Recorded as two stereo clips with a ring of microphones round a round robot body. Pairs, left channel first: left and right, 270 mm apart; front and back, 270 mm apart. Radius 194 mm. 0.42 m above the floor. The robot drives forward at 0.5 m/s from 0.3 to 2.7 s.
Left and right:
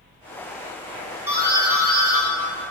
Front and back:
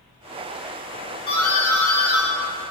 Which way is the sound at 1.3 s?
25° right.